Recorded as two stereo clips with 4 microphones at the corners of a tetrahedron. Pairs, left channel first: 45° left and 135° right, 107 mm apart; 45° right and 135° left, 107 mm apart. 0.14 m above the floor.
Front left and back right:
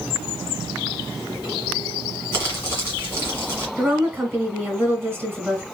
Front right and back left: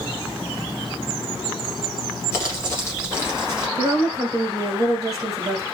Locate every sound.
2.3 s crumpling: 5° right, 1.9 m
3.8 s a woman speaking: 170° left, 1.4 m